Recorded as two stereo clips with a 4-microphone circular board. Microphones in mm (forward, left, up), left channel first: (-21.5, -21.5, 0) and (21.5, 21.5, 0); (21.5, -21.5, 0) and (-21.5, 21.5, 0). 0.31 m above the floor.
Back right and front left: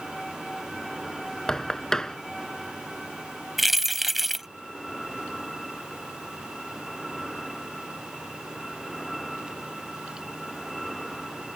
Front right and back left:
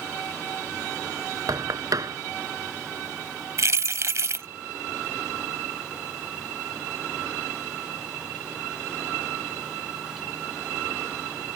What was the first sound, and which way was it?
Knocking, 145° left.